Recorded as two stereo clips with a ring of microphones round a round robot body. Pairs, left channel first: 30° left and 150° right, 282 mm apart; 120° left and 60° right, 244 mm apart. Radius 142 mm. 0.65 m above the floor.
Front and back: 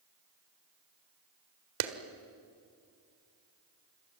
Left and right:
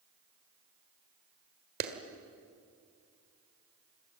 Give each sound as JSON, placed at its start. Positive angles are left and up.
{"t": 1.8, "sound": "a clap", "azimuth_deg": -120, "distance_m": 1.7}